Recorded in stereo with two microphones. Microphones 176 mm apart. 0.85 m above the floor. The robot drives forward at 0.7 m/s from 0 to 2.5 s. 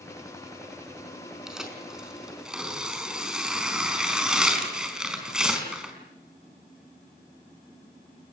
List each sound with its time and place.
1.5 s tearing paper: 5° right (ahead or behind), 5.5 m